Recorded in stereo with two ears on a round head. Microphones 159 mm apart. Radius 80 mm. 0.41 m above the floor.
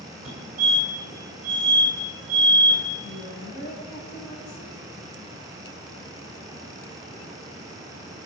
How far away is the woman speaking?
About 7 m.